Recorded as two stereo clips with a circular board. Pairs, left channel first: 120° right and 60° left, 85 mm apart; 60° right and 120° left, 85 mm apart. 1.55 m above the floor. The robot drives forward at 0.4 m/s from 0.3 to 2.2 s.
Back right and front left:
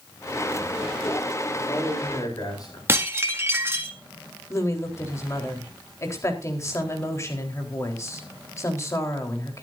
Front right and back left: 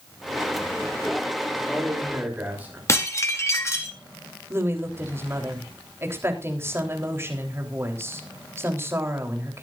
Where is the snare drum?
I don't hear a snare drum.